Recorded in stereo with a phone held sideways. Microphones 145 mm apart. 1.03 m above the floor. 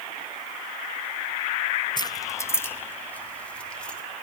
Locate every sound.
2.0 s keys jangling: 30° left (ahead or behind), 0.7 m; by 4.0 s 5° left (ahead or behind), 2 m